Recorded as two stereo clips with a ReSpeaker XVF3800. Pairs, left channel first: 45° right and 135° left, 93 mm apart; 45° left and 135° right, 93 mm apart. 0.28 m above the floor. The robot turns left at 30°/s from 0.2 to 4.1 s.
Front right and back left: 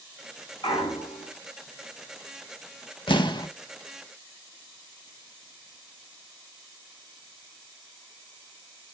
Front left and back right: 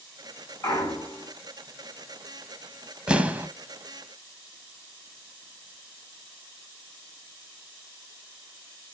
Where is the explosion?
55° right, 0.6 m; by 3.5 s 70° right, 0.6 m.